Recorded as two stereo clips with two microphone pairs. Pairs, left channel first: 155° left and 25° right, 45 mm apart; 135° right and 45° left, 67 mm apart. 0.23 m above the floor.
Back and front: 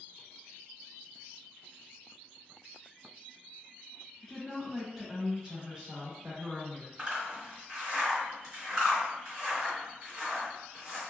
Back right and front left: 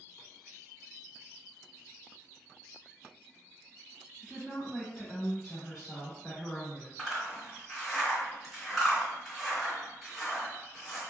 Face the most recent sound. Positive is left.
turn(degrees=-60)